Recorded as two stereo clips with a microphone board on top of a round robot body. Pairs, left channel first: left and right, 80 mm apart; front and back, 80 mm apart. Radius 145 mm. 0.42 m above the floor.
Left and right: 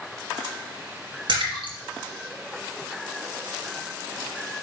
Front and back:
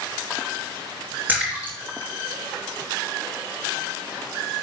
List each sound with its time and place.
1.3 s a splash: 110° right, 4 m